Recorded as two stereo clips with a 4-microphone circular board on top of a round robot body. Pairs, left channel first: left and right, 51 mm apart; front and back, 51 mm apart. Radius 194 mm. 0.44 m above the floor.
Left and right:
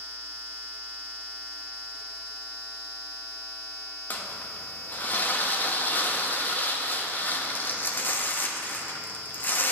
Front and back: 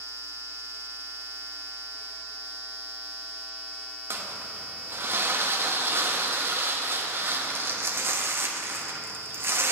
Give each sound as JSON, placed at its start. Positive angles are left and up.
{"t": 4.1, "sound": "crumpling", "azimuth_deg": 140, "distance_m": 1.1}